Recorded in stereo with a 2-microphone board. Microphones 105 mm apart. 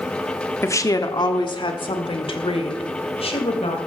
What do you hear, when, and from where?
0.6 s a woman speaking: 25° left (ahead or behind), 1.1 m; by 3.8 s 70° left (ahead or behind), 3 m